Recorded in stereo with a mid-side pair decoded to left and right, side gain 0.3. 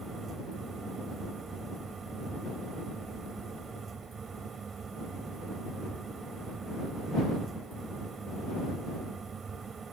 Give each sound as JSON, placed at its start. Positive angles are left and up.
{"t": 0.0, "sound": "a fan", "azimuth_deg": -60}